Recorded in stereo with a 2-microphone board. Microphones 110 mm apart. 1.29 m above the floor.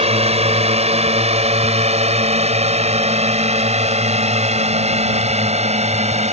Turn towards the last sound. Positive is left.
turn(degrees=-85)